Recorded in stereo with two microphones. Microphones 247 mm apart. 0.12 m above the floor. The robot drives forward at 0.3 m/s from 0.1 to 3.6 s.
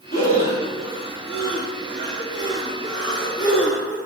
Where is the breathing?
35° left (ahead or behind), 1.9 m; by 4.0 s 55° left (ahead or behind), 1.3 m.